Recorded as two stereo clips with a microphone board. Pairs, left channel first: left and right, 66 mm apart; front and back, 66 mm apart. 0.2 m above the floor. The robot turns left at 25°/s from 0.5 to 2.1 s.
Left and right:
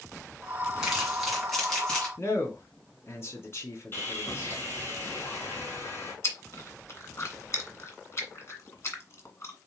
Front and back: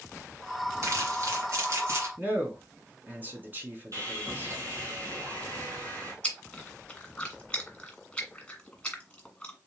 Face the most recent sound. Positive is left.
turn(degrees=70)